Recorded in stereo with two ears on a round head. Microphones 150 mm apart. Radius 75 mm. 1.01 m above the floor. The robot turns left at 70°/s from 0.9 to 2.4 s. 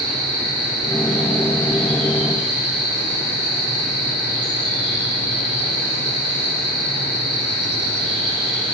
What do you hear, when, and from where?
0.0 s an insect: 110° right, 2.0 m; by 8.8 s 145° left, 2.0 m